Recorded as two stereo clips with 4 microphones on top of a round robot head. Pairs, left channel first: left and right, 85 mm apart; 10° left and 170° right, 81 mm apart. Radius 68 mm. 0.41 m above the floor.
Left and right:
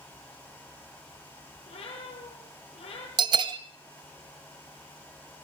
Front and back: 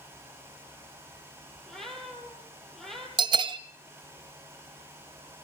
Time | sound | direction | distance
1.7 | a cat meowing | 95° left | 8 m
3.2 | a bell | 135° right | 0.8 m